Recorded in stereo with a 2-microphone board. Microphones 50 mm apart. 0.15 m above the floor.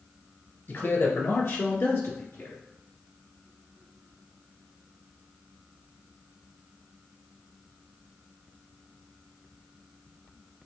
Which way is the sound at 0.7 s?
50° left (ahead or behind).